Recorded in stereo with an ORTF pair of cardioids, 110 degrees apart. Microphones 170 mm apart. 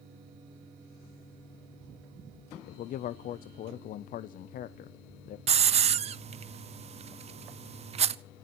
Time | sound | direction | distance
2.7 | a man speaking | 55° left | 0.6 m
5.5 | a hiss | 40° right | 0.6 m